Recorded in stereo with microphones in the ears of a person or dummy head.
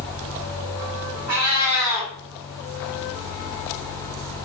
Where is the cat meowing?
30° right (ahead or behind), 1.7 m.